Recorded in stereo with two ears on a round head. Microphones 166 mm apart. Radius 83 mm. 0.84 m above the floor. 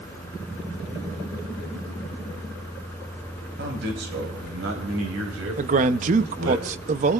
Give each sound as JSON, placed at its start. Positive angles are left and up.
{"t": 3.6, "sound": "a man speaking", "side_deg": -60, "distance_m": 4.5}
{"t": 5.6, "sound": "a man speaking", "side_deg": -40, "distance_m": 0.7}